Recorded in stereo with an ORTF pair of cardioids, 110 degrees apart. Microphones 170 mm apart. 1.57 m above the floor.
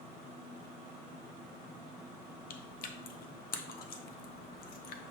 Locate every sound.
2.5 s chewing: 60° left, 0.6 m